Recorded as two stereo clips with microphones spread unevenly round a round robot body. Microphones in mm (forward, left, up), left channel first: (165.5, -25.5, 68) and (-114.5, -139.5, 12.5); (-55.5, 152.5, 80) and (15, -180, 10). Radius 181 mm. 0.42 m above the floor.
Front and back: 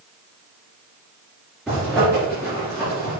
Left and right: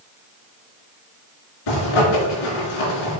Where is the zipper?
115° left, 4 m.